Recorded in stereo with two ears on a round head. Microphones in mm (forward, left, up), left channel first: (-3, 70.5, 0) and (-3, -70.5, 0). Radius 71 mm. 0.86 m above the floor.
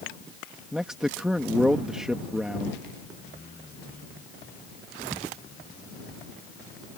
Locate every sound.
0.7 s a man speaking: 5° right (ahead or behind)